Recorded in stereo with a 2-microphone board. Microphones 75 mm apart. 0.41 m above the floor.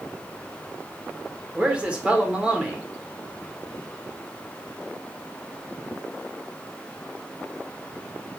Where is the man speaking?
15° right (ahead or behind), 0.8 m.